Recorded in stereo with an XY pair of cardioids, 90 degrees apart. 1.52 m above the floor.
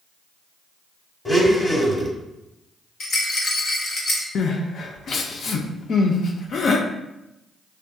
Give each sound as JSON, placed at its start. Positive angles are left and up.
{"t": 1.2, "sound": "a blender", "azimuth_deg": 30, "distance_m": 1.2}
{"t": 3.0, "sound": "a rattle", "azimuth_deg": 65, "distance_m": 1.1}
{"t": 4.3, "sound": "crying", "azimuth_deg": 60, "distance_m": 0.6}